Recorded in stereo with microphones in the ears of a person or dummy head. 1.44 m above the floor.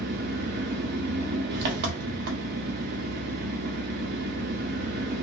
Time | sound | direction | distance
0.0 | an engine running | 55° right (ahead or behind) | 0.7 m